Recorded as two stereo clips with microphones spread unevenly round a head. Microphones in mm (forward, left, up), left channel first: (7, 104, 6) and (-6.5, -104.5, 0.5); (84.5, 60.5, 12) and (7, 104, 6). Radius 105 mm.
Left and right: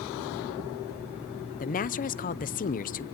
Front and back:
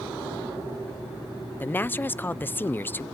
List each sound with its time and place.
1.6 s a woman speaking: 40° left, 0.7 m